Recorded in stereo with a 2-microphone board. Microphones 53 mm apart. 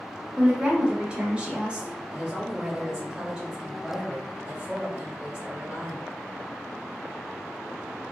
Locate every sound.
0.4 s a woman speaking: 20° right (ahead or behind), 0.8 m
2.1 s a woman speaking: 10° right (ahead or behind), 1.7 m